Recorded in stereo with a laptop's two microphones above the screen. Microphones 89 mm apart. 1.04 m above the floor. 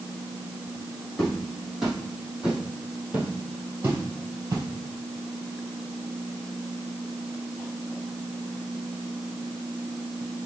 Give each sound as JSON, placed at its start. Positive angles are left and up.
{"t": 1.2, "sound": "footsteps", "side_deg": 5, "distance_m": 2.5}